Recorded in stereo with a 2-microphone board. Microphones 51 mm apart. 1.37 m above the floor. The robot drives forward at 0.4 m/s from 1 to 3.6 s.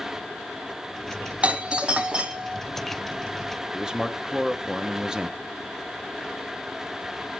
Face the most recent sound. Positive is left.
turn(degrees=-10)  # may be behind; listen again after turning